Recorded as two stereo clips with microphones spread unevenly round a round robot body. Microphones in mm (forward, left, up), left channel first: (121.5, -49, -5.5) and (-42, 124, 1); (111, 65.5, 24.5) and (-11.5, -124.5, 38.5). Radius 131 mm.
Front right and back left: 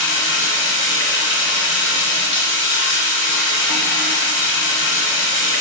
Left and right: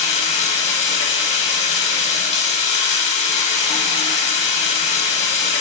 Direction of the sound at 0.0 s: 5° right.